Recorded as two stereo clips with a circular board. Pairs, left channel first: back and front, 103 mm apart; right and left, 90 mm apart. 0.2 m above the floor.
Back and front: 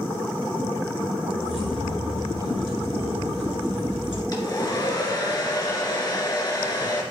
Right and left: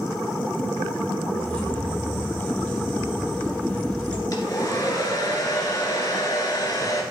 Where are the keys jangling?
165° right, 2.5 m.